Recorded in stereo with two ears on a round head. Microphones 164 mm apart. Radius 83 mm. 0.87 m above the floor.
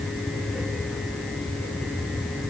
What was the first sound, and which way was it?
Only background noise.